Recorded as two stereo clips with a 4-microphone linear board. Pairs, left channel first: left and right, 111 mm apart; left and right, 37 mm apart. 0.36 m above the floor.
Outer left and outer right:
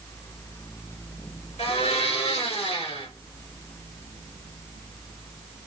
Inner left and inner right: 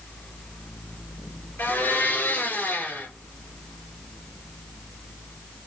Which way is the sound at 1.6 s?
75° left (ahead or behind).